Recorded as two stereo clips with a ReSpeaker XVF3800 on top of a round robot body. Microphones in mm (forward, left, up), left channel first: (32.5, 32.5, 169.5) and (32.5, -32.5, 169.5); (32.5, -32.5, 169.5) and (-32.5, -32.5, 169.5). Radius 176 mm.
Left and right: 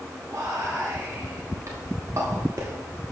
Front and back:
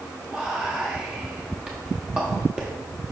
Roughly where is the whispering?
Right.